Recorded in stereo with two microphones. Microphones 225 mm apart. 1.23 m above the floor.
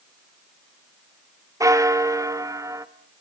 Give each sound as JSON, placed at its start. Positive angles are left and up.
{"t": 1.6, "sound": "a bell", "side_deg": -15, "distance_m": 0.8}